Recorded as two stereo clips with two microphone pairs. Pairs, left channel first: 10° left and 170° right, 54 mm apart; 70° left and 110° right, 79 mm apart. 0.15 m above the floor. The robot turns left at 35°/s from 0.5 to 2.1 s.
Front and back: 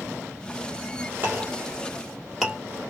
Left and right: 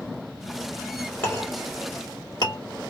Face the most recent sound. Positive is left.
turn(degrees=105)